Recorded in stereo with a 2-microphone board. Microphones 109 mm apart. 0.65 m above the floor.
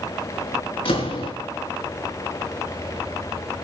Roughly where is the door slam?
Left.